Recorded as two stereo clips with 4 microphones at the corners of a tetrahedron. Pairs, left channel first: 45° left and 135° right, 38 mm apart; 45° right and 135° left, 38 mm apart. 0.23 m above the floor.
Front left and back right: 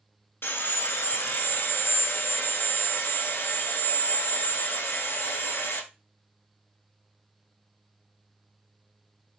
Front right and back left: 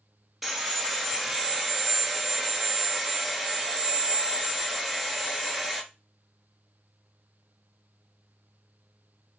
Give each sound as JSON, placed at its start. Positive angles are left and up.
{"t": 0.4, "sound": "sawing", "azimuth_deg": 50, "distance_m": 0.9}